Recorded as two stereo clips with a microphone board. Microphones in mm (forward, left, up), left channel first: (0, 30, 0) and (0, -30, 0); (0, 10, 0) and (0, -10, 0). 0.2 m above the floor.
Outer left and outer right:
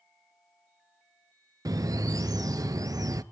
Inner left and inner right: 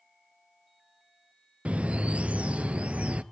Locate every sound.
1.6 s a bird: 80° right, 0.6 m